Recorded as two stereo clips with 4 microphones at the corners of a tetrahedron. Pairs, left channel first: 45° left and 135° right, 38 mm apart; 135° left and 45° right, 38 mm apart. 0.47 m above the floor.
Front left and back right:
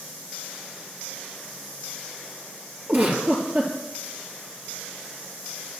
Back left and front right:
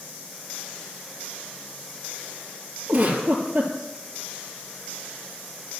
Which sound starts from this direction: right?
A giggle, at 2.9 s.